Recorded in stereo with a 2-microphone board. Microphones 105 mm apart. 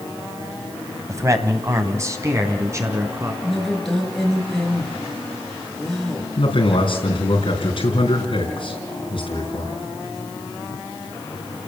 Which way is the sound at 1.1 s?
30° right (ahead or behind).